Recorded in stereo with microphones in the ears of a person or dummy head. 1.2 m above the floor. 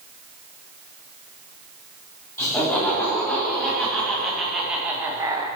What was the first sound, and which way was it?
Laughter, 10° left (ahead or behind).